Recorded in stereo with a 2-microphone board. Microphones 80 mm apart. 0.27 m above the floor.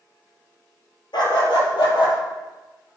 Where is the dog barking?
75° left (ahead or behind), 1.7 m; by 2.2 s 85° left, 2.5 m.